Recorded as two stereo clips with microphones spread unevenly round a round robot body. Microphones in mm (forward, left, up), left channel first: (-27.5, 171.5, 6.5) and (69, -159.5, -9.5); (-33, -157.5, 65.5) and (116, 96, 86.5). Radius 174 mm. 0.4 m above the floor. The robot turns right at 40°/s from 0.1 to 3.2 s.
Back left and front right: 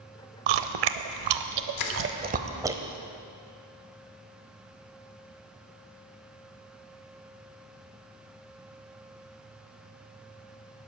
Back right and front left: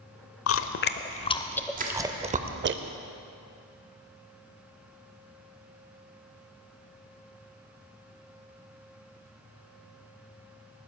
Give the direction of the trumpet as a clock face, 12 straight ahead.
I don't hear a trumpet.